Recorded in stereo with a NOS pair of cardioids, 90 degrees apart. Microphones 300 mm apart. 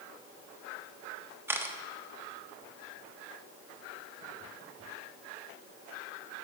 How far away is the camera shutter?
About 0.9 m.